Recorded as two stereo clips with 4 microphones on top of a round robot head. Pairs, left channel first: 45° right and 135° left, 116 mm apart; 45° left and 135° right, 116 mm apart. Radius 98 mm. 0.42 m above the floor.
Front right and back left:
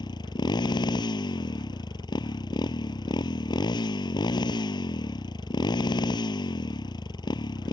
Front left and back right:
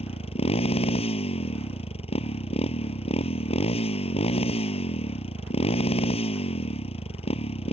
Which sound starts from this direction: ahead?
A motorcycle, at 0.0 s.